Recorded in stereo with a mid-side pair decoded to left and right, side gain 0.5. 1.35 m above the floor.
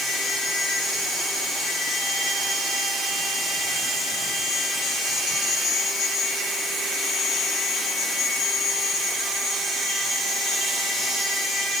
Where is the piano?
No piano in this recording.